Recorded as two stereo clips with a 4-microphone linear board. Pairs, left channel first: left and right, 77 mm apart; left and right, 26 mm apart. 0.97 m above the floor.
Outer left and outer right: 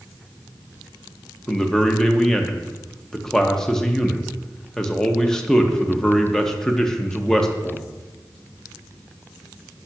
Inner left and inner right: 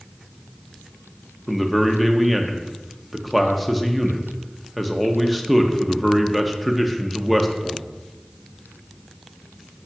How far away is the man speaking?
About 0.6 m.